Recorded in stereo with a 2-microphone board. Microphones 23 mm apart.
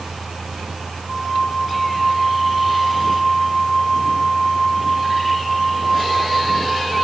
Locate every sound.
1.1 s a flute: 5° left (ahead or behind), 3.5 m